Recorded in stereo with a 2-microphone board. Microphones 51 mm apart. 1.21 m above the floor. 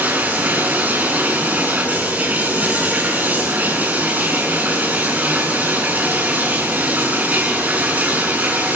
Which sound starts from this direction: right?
Running water, at 0.0 s.